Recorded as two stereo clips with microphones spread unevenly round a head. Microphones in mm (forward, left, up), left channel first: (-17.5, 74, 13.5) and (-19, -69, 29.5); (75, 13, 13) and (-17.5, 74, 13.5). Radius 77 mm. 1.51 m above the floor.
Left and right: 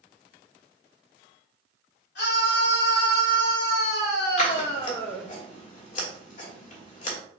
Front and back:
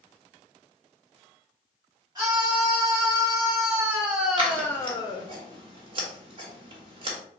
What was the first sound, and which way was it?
A scream, 95° left.